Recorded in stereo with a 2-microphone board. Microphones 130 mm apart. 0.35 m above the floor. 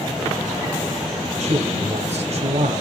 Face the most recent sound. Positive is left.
turn(degrees=-55)  # may be behind; listen again after turning